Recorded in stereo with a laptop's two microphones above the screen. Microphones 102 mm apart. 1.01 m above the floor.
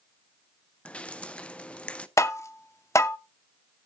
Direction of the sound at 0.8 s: 10° left (ahead or behind).